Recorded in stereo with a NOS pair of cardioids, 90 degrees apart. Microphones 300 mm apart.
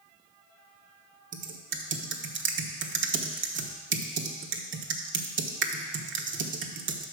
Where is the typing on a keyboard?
40° right, 1.1 m.